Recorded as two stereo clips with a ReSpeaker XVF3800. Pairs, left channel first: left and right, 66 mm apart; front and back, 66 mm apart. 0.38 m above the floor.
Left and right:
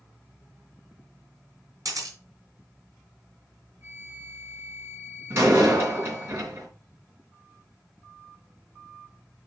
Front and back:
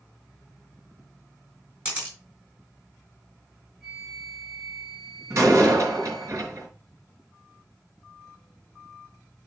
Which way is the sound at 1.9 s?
120° right.